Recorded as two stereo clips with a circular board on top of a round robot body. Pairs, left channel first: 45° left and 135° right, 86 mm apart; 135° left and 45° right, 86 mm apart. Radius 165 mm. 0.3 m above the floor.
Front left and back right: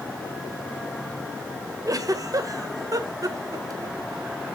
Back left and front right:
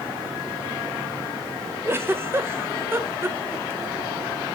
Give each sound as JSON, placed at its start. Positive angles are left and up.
{"t": 1.9, "sound": "a giggle", "azimuth_deg": -100, "distance_m": 1.8}